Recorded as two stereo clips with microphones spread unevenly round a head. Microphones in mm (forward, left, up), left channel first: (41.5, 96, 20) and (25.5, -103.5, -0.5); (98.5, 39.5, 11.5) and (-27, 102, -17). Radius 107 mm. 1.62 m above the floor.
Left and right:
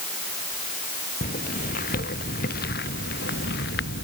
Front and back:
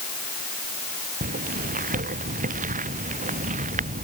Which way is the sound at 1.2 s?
135° left.